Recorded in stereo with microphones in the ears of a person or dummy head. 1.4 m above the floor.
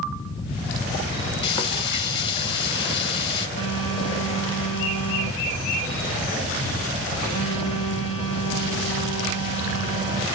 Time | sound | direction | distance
1.4 | frying | 30° left (ahead or behind) | 0.8 m
3.6 | a phone buzzing | 45° right (ahead or behind) | 2 m